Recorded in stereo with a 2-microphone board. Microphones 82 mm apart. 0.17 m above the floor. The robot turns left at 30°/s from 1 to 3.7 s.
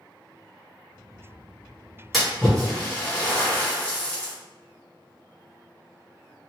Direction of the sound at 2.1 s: Centre (ahead or behind).